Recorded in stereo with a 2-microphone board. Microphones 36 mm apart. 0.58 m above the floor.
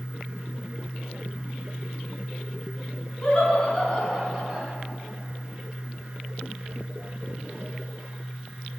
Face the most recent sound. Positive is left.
turn(degrees=0)  # may be behind; listen again after turning